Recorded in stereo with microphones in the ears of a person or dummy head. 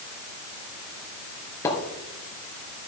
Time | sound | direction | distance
1.6 | a splash | 15° left (ahead or behind) | 4 m